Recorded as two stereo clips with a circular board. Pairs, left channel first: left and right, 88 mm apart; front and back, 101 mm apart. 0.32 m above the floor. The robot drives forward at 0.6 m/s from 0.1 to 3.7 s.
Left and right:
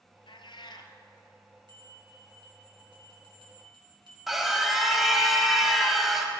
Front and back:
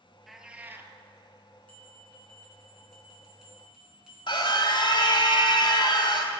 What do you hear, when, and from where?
0.3 s a cat meowing: 90° left, 0.7 m; by 0.9 s 120° left, 0.9 m
1.7 s a bell: 75° right, 3.5 m; by 4.2 s 95° right, 3.5 m
4.3 s a scream: 5° right, 1.5 m